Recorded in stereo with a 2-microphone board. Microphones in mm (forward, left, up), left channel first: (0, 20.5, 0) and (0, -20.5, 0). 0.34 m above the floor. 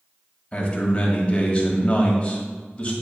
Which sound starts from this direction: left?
A man speaking, at 0.5 s.